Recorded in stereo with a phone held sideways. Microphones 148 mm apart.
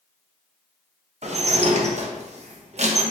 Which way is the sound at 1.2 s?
50° right (ahead or behind).